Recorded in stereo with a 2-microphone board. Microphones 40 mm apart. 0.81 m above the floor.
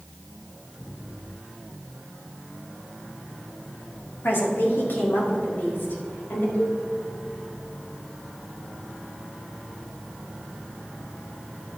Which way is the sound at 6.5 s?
75° left (ahead or behind).